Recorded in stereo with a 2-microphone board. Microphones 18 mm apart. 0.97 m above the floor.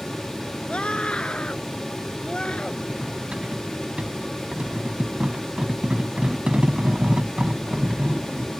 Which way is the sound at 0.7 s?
65° left (ahead or behind).